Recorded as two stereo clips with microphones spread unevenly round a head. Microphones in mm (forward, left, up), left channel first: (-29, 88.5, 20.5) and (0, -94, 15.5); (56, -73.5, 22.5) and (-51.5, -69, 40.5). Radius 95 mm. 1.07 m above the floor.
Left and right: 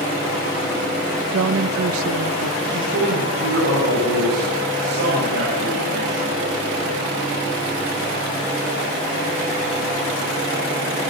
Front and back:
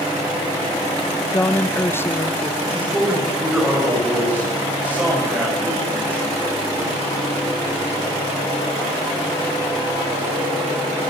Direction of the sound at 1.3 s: 70° right.